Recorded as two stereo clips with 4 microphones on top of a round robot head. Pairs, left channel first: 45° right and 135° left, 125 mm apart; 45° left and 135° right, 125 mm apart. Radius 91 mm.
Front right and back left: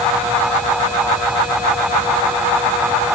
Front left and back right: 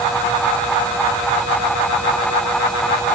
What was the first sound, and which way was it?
Only background noise.